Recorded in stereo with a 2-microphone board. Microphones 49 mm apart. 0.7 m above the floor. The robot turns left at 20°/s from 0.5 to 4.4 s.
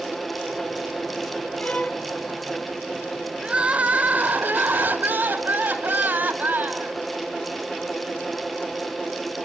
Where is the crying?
25° right (ahead or behind), 3 m; by 7.0 s 45° right (ahead or behind), 3 m.